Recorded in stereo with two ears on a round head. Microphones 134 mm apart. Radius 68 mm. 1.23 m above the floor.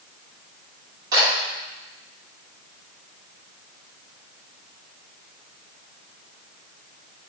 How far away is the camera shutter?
About 2 m.